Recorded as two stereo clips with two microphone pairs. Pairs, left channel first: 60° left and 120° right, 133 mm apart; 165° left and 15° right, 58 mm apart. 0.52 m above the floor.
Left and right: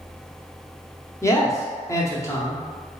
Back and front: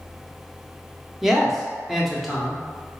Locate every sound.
1.2 s a man speaking: 65° left, 0.7 m